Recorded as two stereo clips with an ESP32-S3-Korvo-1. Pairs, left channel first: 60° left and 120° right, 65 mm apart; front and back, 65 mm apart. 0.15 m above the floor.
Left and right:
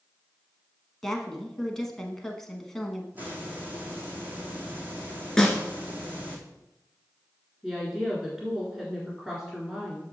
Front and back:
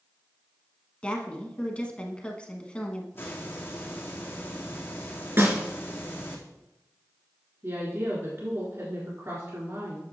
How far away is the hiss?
About 1.8 m.